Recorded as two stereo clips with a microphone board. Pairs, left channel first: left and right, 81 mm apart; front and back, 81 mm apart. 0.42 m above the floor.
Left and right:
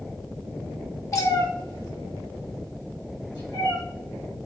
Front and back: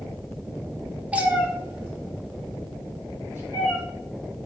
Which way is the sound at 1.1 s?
115° left.